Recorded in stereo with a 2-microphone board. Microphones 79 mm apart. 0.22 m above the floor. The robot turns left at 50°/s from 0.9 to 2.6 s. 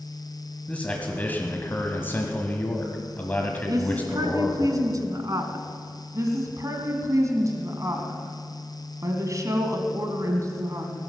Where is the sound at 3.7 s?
50° right (ahead or behind), 1.9 m.